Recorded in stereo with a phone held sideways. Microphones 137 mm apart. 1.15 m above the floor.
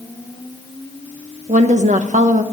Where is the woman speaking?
60° right (ahead or behind), 1.1 m.